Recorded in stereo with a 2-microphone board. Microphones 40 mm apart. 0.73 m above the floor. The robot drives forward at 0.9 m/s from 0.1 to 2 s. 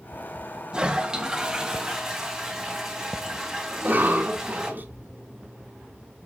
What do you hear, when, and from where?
0.7 s a toilet flushing: 20° right (ahead or behind), 1.3 m; by 4.7 s 10° right (ahead or behind), 2.5 m
3.7 s a cough: 50° right (ahead or behind), 2.5 m